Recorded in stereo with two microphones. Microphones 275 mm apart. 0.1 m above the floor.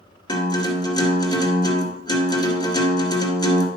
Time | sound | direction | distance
0.3 | a guitar | 15° left (ahead or behind) | 2 m